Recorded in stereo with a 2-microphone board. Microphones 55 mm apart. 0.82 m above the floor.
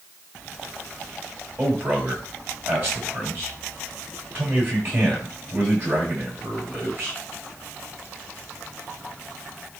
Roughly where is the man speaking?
Right.